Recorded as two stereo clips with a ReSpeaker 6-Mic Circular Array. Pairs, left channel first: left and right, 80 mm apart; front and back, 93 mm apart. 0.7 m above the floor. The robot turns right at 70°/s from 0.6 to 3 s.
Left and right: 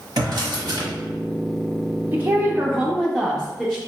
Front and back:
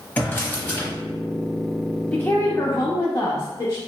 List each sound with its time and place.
0.2 s a drawer: 70° right, 1.0 m; by 0.9 s 50° right, 1.0 m
2.1 s a woman speaking: 55° right, 0.6 m; by 3.8 s 5° left, 0.6 m